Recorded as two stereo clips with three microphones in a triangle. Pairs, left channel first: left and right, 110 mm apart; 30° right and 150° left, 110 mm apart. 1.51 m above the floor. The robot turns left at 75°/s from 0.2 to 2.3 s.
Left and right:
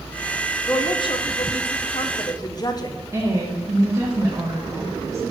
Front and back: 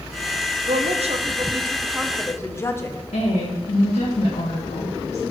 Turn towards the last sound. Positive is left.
turn(degrees=-30)